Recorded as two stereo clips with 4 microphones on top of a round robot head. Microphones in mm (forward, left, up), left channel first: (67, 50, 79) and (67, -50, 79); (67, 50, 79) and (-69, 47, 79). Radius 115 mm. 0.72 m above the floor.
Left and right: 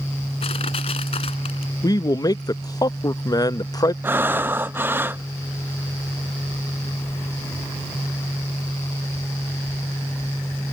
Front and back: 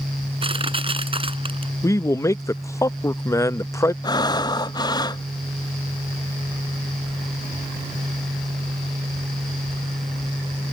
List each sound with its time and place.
0.4 s crushing: 130° left
1.8 s a man speaking: 60° left
4.0 s breathing: 35° right